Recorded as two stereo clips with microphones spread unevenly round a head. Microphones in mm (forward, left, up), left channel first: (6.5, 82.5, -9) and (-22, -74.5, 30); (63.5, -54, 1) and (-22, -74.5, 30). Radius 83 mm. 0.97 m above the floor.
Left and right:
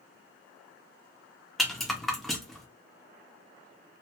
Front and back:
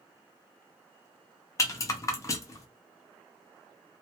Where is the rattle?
35° right, 0.5 m.